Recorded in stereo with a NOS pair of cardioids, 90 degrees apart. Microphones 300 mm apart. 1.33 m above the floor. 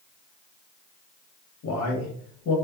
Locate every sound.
1.6 s a man speaking: 70° left, 1.3 m